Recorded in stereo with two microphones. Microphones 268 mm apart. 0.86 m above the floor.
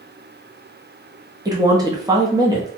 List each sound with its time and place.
1.4 s a woman speaking: 15° right (ahead or behind), 0.6 m